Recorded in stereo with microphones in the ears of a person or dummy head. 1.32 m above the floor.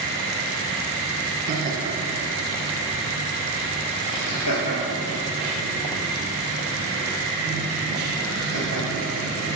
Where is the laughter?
45° right (ahead or behind), 1.4 m; by 9.1 s 85° left, 5.5 m.